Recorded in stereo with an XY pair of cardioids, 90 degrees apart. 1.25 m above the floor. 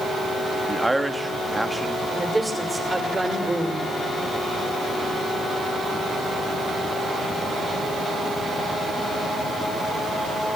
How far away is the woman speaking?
About 5 m.